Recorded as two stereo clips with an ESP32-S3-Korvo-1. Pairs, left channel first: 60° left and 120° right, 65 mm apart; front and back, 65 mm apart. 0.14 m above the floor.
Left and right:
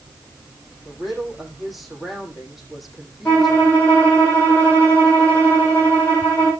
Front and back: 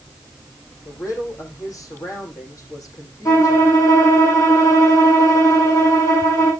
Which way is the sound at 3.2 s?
5° right.